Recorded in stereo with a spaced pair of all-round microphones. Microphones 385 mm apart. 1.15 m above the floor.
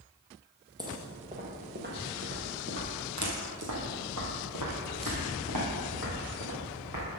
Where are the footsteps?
10° right (ahead or behind), 1.8 m; by 7.2 s 60° right (ahead or behind), 3.5 m.